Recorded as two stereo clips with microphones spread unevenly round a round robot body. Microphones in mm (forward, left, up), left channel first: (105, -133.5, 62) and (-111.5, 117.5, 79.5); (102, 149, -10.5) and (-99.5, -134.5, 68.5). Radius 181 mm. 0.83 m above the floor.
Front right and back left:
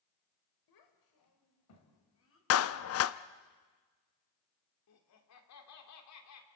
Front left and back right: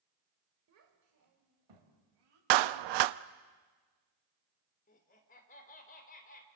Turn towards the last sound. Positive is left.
turn(degrees=-10)